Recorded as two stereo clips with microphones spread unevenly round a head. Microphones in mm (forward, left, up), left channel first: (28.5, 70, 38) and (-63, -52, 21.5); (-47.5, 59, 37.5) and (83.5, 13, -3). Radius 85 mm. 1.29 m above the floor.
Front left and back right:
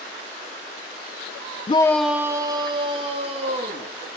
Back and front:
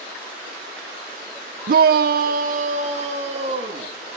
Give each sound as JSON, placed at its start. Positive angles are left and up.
{"t": 1.7, "sound": "a shout", "azimuth_deg": -5, "distance_m": 0.5}